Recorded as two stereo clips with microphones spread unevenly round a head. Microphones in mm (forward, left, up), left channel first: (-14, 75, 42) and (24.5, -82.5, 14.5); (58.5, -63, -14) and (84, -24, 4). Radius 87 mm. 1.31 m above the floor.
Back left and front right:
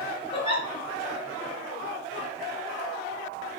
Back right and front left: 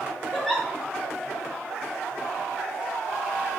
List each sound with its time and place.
0.3 s a giggle: 135° left, 1.1 m